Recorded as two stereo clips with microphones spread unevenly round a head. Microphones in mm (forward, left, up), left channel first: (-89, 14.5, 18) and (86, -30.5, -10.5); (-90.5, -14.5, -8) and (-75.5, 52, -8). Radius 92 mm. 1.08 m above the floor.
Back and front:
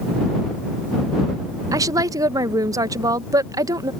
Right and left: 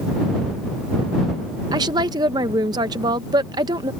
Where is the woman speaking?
55° left.